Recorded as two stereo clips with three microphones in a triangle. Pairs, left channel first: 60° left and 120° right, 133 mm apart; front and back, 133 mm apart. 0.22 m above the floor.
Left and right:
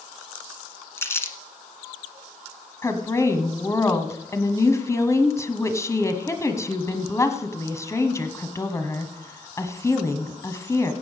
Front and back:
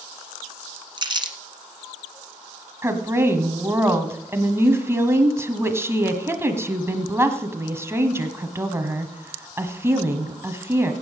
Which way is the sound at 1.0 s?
130° left.